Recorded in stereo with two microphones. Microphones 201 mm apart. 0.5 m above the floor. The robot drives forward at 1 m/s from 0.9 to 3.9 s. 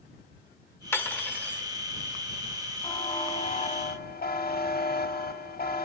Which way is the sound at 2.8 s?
25° left (ahead or behind).